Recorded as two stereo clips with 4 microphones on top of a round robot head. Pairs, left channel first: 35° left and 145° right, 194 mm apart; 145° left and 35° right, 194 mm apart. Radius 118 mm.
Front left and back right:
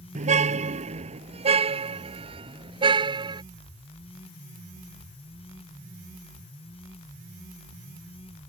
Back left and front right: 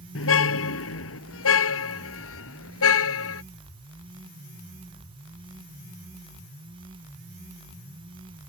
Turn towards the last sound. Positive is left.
turn(degrees=145)